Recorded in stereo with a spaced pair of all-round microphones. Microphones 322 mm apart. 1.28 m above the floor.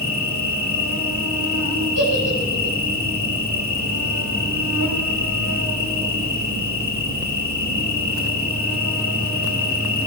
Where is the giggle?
75° left (ahead or behind), 6.5 m.